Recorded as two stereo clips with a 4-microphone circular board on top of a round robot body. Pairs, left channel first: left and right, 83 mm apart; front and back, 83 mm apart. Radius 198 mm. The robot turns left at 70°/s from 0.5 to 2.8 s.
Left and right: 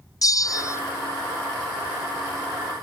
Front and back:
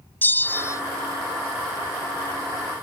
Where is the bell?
60° left; by 0.8 s 40° left.